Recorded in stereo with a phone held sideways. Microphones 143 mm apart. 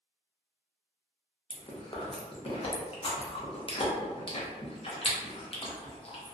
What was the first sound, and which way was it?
Chewing, 40° left (ahead or behind).